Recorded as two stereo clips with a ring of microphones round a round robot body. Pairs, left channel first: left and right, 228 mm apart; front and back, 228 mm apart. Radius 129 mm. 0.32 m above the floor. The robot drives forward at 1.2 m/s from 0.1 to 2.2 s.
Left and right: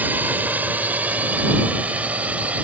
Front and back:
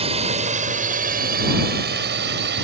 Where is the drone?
165° right; by 2.6 s 170° right.